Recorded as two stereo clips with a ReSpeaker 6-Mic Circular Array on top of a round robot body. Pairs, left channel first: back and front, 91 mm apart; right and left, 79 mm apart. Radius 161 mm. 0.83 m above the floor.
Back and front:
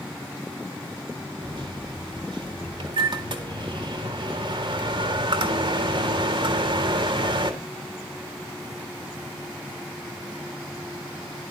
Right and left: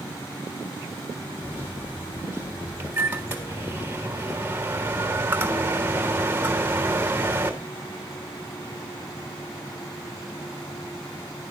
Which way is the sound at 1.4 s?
25° left.